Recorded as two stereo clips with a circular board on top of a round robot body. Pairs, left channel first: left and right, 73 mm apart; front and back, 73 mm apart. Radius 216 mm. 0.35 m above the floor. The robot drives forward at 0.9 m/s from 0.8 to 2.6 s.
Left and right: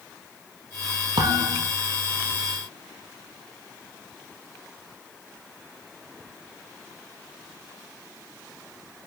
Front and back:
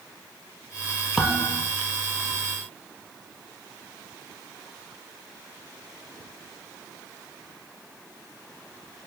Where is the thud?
90° right, 2.5 m; by 1.7 s 100° right, 2.5 m.